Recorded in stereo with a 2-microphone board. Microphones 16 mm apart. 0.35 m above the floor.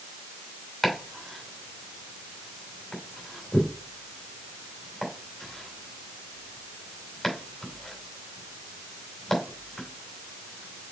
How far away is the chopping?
About 2.5 m.